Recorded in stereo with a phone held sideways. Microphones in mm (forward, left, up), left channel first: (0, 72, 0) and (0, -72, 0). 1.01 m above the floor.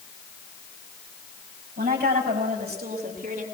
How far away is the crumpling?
No crumpling in this recording.